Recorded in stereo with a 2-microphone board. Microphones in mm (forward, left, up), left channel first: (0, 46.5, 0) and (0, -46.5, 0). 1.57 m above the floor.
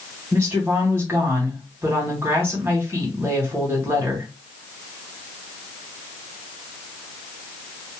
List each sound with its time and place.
0.3 s a woman speaking: 25° right (ahead or behind), 1.5 m